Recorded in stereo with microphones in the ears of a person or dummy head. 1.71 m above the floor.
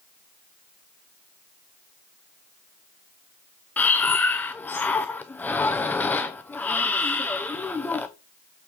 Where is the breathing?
10° left (ahead or behind), 0.6 m.